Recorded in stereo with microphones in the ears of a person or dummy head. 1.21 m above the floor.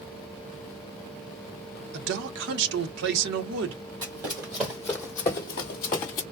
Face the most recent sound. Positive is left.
turn(degrees=25)  # may be behind; listen again after turning